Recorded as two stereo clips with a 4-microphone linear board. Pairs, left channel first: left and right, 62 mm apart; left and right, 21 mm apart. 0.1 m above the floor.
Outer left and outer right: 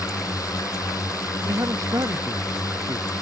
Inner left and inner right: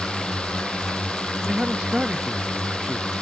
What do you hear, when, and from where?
0.0 s a drone: 65° left (ahead or behind)
1.5 s a man speaking: 60° right (ahead or behind)